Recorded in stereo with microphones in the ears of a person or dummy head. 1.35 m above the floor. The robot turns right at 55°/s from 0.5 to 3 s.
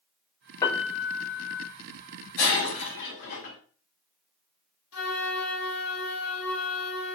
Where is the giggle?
I don't hear a giggle.